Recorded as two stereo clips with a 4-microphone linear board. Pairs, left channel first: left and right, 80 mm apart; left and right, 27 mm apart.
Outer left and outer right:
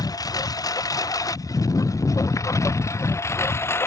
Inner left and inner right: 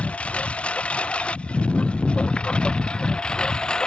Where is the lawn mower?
55° left (ahead or behind); by 3.9 s 35° left (ahead or behind).